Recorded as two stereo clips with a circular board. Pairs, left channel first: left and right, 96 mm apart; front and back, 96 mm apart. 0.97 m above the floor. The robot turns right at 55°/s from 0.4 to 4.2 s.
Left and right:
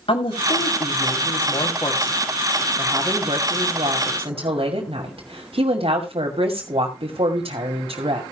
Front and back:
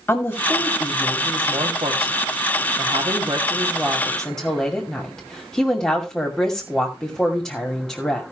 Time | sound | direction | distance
0.1 | a woman speaking | 70° left | 2.5 m